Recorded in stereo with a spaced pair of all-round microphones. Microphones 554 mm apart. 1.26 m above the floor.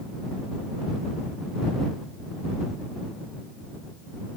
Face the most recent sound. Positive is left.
No sound to turn to.